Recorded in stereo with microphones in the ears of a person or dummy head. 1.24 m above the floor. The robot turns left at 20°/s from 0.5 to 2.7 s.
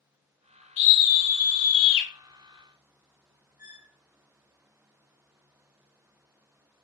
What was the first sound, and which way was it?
A scream, 80° left.